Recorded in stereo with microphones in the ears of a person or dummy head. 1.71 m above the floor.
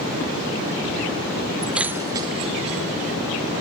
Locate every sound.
1.6 s keys jangling: 5° left (ahead or behind); by 3.2 s 40° right (ahead or behind)